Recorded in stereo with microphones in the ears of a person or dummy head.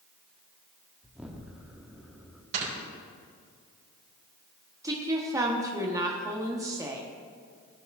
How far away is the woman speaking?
About 1.0 m.